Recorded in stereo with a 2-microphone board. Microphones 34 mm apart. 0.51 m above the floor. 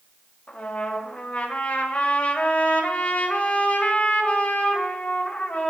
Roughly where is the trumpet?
Left.